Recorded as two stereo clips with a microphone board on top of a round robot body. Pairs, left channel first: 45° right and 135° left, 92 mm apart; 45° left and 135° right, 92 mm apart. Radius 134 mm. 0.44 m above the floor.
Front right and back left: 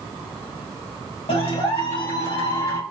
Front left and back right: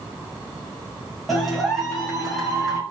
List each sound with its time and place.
1.3 s a clap: 45° right, 2.5 m